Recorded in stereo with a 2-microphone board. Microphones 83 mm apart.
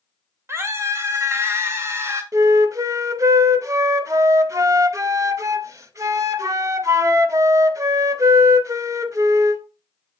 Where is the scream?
35° right (ahead or behind), 2.0 m.